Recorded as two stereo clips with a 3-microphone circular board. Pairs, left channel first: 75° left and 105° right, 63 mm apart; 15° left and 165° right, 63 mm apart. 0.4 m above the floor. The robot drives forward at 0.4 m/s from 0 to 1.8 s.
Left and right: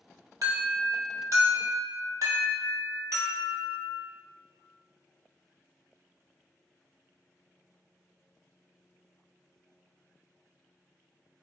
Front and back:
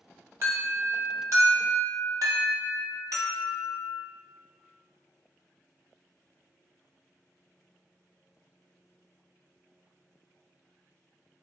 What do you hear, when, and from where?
0.4 s an alarm: 120° right, 1.3 m; by 4.0 s 140° right, 1.6 m